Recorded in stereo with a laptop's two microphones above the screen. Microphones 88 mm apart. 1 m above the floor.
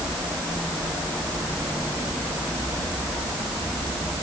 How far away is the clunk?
No clunk in this recording.